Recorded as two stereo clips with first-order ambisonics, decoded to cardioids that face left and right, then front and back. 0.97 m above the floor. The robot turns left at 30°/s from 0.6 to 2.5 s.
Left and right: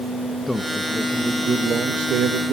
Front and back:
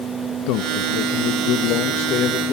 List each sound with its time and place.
0.5 s a man speaking: 5° left, 0.9 m; by 2.5 s 50° right, 0.9 m